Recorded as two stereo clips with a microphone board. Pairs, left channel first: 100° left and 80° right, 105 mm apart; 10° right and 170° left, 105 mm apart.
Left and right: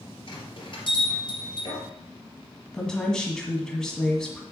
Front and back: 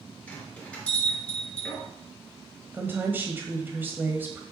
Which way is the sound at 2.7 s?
170° left.